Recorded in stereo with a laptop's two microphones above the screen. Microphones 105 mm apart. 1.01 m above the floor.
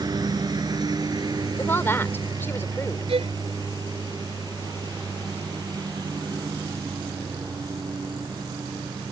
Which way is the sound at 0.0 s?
40° right (ahead or behind).